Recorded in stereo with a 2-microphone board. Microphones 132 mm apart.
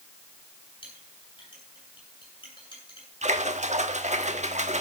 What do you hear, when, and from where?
0.8 s a clink: 40° left (ahead or behind), 8.5 m
3.2 s a splash: 65° right (ahead or behind), 1.3 m